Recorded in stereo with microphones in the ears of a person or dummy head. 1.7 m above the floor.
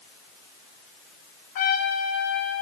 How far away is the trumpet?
About 2.5 m.